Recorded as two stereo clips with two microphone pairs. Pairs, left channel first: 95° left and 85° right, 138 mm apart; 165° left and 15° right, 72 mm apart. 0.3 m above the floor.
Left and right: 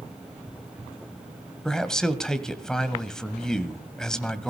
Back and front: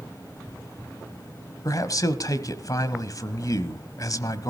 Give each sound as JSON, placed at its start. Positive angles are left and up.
{"t": 1.6, "sound": "a man speaking", "azimuth_deg": 180, "distance_m": 1.4}